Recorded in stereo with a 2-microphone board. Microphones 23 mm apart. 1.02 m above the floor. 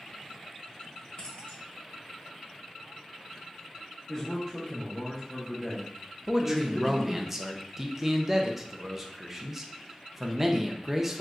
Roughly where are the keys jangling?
Left.